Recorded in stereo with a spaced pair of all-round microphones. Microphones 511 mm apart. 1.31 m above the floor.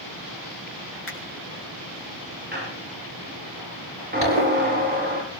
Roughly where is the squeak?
Centre.